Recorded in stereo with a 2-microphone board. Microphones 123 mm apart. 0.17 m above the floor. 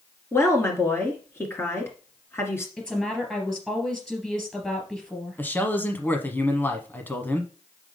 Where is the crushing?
No crushing in this recording.